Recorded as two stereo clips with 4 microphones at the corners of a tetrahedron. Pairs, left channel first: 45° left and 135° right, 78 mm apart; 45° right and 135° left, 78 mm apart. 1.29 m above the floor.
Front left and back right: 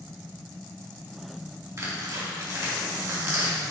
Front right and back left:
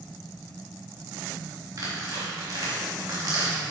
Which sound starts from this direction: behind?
Tearing paper, at 1.8 s.